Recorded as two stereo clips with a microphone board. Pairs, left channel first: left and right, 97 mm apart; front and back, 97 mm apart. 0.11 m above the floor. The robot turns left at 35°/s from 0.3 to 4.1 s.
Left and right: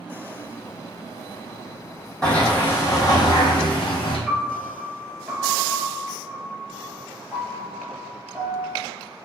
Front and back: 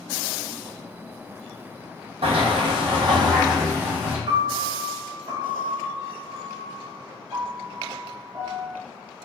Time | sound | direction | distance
2.2 | a sliding door | 170° left | 1.2 m
4.3 | a piano | 165° right | 1.0 m